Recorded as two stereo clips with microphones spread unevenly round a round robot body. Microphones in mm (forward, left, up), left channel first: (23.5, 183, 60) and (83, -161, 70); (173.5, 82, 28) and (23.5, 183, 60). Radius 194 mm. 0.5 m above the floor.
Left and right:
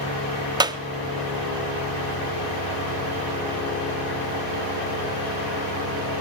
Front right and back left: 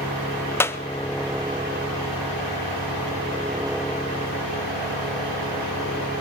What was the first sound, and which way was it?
A clap, 15° right.